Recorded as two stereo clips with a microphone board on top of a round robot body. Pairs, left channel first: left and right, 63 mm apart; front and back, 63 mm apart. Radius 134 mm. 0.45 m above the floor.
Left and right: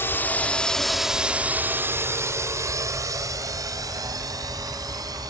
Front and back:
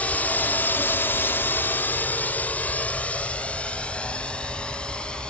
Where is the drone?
55° left; by 5.3 s 75° right.